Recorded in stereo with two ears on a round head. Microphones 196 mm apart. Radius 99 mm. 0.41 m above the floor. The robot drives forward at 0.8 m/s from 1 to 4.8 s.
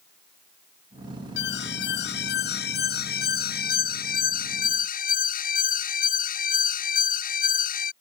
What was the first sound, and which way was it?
An alarm, 55° left (ahead or behind).